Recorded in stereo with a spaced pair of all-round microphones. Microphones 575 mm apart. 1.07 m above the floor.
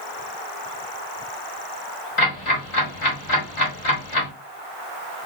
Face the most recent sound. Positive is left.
turn(degrees=65)  # may be behind; listen again after turning